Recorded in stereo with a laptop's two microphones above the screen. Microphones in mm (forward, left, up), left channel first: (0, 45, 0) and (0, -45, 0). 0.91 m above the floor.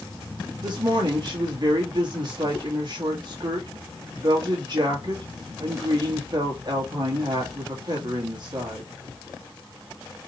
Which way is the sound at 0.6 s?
50° right (ahead or behind).